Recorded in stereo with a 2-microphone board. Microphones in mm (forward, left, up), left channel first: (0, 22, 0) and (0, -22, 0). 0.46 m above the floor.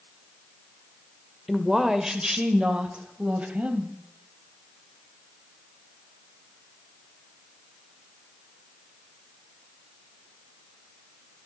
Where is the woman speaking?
5° right (ahead or behind), 1.6 m; by 3.9 s 35° right (ahead or behind), 3 m.